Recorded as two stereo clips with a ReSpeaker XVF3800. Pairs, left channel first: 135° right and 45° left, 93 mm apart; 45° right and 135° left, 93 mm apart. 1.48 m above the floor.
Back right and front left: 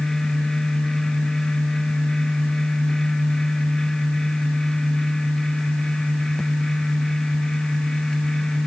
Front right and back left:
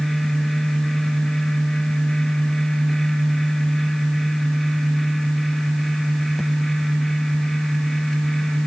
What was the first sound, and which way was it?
Only background noise.